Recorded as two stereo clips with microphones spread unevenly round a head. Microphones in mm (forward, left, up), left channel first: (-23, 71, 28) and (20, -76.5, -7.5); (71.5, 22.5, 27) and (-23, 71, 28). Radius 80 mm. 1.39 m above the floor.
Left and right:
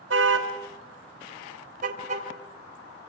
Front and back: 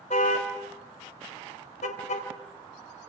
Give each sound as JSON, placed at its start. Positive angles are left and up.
{"t": 0.1, "sound": "a car horn", "azimuth_deg": -70, "distance_m": 3.5}